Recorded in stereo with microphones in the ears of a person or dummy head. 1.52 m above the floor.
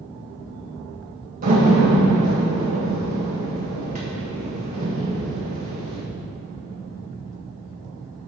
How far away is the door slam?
About 1.5 m.